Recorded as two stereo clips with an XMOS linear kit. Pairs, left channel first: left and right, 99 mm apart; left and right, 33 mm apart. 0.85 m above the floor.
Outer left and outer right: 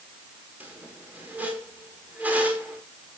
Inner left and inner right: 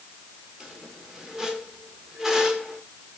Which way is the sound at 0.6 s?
15° right (ahead or behind).